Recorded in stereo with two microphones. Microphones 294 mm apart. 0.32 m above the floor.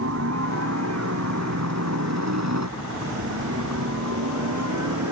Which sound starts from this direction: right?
A helicopter, at 0.0 s.